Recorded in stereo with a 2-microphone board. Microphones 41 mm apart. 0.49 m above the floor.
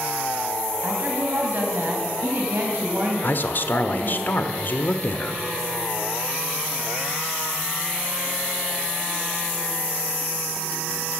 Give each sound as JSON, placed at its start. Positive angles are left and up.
{"t": 0.8, "sound": "a woman speaking", "side_deg": -50, "distance_m": 3.0}
{"t": 3.2, "sound": "a man speaking", "side_deg": 50, "distance_m": 1.1}